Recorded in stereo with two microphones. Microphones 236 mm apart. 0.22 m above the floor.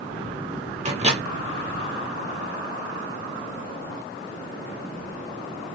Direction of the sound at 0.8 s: 30° right (ahead or behind).